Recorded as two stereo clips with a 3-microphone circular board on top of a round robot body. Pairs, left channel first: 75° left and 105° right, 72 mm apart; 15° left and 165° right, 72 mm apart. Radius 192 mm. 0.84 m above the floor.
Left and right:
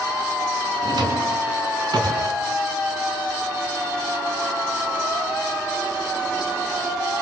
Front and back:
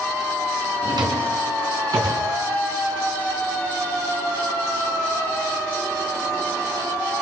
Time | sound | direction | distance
0.8 | a drawer | 135° right | 3.5 m